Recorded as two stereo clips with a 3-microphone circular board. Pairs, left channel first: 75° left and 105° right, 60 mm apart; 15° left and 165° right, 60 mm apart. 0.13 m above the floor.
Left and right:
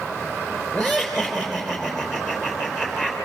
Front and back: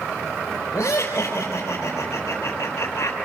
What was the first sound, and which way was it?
Laughter, 20° right.